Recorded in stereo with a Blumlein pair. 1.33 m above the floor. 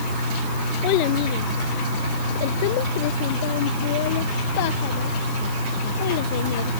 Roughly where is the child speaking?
Ahead left.